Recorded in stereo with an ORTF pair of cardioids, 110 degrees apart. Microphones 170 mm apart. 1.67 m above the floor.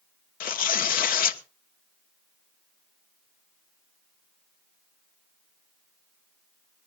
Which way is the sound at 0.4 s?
60° left.